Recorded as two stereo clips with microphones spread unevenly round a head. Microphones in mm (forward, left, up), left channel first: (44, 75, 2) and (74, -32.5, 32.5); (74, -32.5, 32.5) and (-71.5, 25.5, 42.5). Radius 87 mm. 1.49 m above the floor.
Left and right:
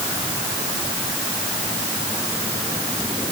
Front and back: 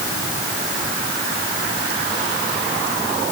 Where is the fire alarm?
I don't hear a fire alarm.